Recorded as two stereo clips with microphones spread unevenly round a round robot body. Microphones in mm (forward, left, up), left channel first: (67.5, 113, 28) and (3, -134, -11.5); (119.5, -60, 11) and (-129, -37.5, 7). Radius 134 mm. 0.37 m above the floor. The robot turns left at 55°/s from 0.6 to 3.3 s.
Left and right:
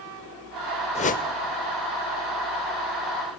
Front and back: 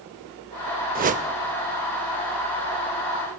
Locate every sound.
0.9 s a whoosh: 140° left, 0.6 m; by 1.2 s 125° left, 0.6 m